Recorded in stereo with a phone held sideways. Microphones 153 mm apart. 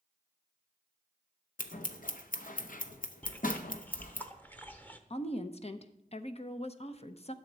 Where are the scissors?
65° left (ahead or behind), 0.7 m.